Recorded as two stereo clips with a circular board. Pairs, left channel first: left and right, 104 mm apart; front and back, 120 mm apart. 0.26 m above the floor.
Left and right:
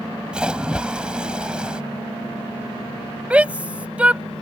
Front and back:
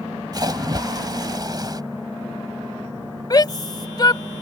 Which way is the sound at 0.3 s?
165° right.